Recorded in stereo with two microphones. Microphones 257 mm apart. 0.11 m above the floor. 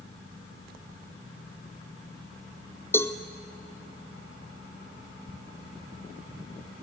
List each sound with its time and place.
2.9 s a cowbell: 10° left (ahead or behind), 1.1 m